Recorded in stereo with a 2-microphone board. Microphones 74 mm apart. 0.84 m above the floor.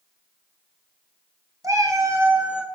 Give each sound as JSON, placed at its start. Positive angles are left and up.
{"t": 1.6, "sound": "a cat meowing", "side_deg": -45, "distance_m": 1.4}